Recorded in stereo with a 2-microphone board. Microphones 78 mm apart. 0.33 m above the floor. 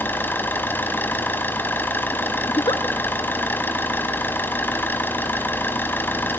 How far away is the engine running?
About 1.4 m.